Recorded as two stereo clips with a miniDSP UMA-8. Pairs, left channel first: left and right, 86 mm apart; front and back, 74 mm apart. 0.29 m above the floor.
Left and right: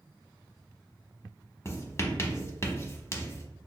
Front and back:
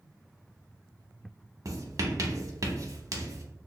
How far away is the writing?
About 0.6 m.